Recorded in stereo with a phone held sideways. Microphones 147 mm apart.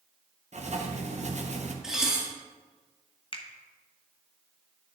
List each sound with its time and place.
0.5 s writing: 50° right (ahead or behind), 0.8 m
1.8 s dishes clattering: 5° right (ahead or behind), 1.5 m
3.3 s a finger snap: 35° left (ahead or behind), 0.7 m